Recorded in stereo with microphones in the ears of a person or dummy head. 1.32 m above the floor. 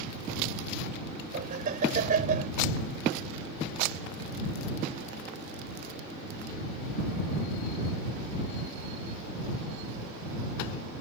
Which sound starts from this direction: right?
Laughter, at 1.3 s.